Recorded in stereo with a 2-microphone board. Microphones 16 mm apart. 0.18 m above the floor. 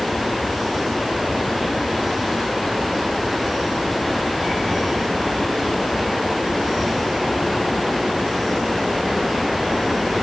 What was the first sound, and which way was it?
Only background noise.